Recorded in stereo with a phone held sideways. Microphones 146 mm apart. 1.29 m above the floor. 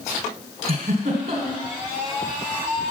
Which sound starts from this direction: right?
A giggle, at 0.7 s.